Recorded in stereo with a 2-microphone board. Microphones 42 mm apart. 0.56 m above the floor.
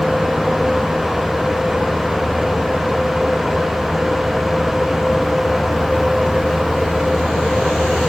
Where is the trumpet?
I don't hear a trumpet.